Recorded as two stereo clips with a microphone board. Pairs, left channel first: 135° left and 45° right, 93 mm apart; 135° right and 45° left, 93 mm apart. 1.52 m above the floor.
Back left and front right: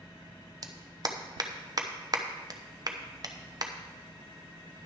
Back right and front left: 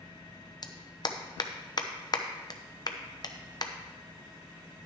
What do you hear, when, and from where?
0.6 s a clap: 90° right, 0.9 m